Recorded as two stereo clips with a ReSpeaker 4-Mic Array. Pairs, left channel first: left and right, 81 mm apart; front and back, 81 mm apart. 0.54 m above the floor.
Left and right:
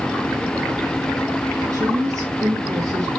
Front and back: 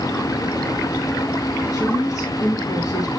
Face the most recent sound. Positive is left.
turn(degrees=-50)